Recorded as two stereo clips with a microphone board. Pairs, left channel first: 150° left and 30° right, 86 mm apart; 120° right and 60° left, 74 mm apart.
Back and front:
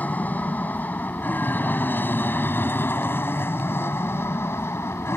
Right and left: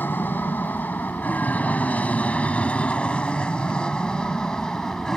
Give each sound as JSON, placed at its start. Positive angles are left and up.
{"t": 0.0, "sound": "an aircraft", "azimuth_deg": -155}